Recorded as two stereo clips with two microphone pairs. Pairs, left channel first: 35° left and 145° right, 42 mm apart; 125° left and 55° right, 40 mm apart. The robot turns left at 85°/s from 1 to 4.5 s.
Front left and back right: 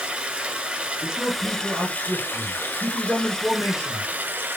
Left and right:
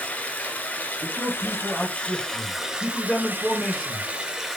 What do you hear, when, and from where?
0.0 s running water: 160° left, 0.8 m; by 4.6 s 140° right, 0.8 m
1.0 s a man speaking: 100° right, 1.5 m; by 4.1 s straight ahead, 1.5 m